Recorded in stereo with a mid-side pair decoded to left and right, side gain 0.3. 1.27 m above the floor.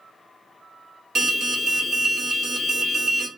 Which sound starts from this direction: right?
An alarm, at 1.1 s.